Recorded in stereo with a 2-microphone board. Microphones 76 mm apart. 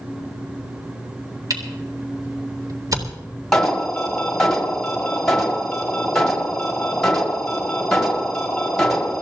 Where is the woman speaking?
No woman speaking in this recording.